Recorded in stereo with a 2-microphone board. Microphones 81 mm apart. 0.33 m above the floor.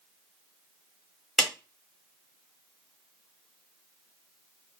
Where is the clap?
5° left (ahead or behind), 1.5 m.